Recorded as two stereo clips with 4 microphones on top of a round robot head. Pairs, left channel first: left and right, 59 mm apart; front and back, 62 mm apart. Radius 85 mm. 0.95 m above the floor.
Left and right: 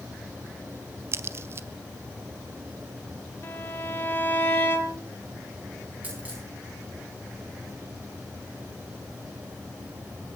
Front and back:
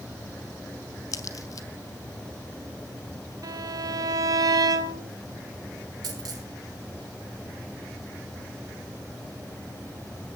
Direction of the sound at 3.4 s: 155° left.